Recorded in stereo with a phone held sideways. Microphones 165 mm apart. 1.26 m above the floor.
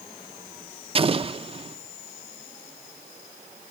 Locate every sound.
0.9 s an explosion: 35° right (ahead or behind), 0.7 m